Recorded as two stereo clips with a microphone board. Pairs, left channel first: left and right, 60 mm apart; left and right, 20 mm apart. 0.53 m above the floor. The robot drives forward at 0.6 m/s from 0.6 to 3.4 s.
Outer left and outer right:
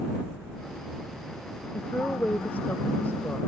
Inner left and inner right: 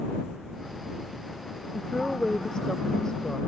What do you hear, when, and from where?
1.7 s a woman speaking: 25° left (ahead or behind); by 3.4 s 35° left (ahead or behind)